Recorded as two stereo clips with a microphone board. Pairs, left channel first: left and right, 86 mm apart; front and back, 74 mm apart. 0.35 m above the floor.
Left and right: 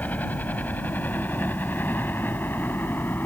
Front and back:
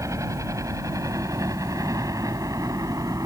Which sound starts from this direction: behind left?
A helicopter, at 0.0 s.